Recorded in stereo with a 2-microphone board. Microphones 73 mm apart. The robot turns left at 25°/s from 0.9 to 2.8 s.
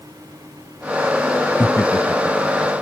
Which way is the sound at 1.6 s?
30° left (ahead or behind).